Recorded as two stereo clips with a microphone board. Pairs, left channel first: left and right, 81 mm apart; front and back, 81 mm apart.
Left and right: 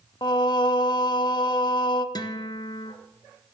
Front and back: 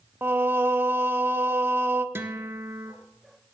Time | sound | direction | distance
0.2 | singing | 115° left | 0.6 m
2.1 | a guitar | 120° left | 0.8 m